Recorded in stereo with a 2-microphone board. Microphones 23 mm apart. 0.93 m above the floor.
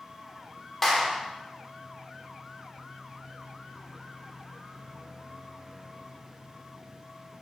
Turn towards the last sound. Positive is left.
turn(degrees=15)  # may be behind; listen again after turning